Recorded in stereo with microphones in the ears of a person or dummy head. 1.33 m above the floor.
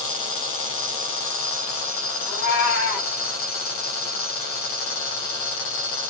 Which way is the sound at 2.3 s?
5° right (ahead or behind).